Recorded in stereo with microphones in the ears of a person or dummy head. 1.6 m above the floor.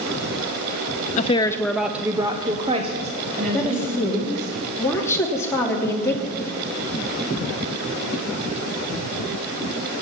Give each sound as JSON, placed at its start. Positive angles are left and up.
{"t": 1.2, "sound": "a woman speaking", "side_deg": 35, "distance_m": 0.6}
{"t": 3.5, "sound": "a woman speaking", "side_deg": 10, "distance_m": 3.0}